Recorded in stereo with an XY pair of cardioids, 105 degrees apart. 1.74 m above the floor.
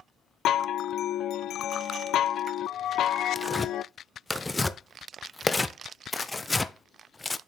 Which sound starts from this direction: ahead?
Tearing paper, at 3.4 s.